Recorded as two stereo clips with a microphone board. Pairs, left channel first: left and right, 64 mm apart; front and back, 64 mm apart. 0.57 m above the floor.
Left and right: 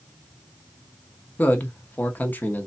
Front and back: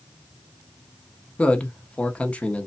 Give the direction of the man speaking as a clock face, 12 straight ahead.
10 o'clock.